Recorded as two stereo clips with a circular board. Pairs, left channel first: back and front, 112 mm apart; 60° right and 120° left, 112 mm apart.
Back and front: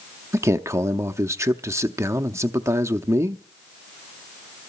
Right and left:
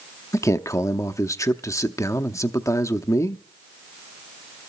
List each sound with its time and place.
0.3 s a man speaking: 30° right, 0.6 m